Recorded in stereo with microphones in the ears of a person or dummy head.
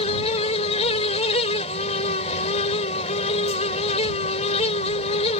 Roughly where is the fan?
Left.